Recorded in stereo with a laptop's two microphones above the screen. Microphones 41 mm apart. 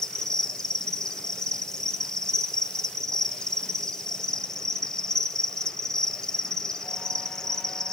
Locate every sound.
0.0 s an insect: 15° left (ahead or behind), 0.8 m